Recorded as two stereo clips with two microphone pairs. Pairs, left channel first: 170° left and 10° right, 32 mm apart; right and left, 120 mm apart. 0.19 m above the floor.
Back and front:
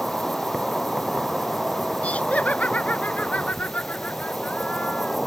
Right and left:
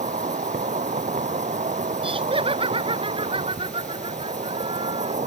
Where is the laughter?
130° left.